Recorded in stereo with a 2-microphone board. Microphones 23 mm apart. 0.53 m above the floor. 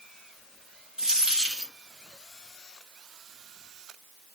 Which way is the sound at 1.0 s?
20° right (ahead or behind).